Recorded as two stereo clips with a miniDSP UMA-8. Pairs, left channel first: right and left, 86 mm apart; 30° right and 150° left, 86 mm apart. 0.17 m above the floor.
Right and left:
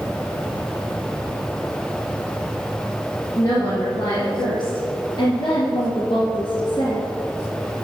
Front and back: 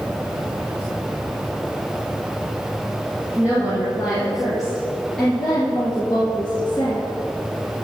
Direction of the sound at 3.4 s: 135° right.